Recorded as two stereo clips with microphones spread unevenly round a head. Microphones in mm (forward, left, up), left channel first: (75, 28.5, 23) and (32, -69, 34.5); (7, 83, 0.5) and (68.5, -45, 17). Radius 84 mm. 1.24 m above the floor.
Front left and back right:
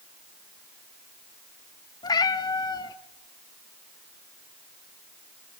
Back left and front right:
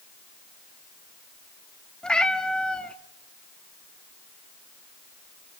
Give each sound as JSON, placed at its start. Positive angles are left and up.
{"t": 2.0, "sound": "a cat meowing", "azimuth_deg": 25, "distance_m": 0.8}